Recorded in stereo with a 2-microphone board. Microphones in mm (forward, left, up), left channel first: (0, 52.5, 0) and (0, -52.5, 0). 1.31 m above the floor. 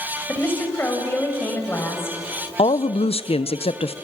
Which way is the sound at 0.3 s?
20° left (ahead or behind).